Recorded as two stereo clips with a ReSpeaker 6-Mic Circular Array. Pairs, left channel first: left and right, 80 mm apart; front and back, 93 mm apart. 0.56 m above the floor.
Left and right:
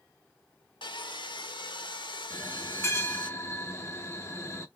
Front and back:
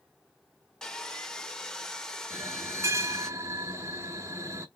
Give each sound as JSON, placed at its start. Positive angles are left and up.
{"t": 0.8, "sound": "sawing", "azimuth_deg": 85, "distance_m": 0.6}
{"t": 2.3, "sound": "a bell", "azimuth_deg": 135, "distance_m": 0.7}